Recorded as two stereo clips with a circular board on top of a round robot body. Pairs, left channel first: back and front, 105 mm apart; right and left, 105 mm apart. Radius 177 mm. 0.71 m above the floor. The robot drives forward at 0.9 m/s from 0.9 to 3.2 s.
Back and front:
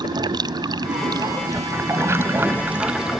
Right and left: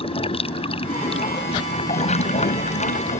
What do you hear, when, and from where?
0.0 s running water: 55° right; by 3.2 s 85° right